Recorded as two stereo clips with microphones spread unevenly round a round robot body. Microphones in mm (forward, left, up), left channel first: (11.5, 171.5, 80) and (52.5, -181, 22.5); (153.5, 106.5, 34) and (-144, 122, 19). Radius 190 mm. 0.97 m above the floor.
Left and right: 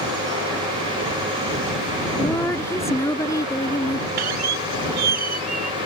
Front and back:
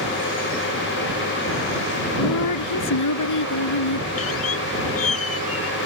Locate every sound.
2.2 s a woman speaking: 15° left
4.2 s a squeak: 60° right